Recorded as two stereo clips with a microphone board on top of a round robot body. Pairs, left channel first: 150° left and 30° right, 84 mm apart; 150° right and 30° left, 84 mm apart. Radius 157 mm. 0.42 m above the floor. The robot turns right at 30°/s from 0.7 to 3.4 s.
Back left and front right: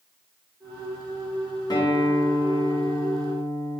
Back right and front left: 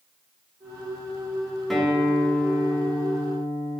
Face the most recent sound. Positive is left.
turn(degrees=170)